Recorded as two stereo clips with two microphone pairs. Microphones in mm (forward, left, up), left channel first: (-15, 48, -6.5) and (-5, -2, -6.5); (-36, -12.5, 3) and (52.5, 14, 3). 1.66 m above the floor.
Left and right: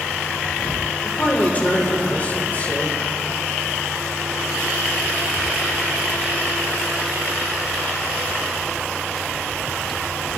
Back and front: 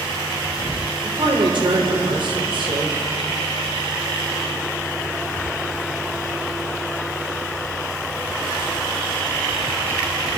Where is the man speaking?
40° left, 5 m.